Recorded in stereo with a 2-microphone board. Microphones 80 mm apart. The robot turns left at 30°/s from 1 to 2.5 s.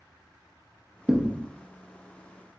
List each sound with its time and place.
1.1 s a thud: 10° right (ahead or behind), 0.6 m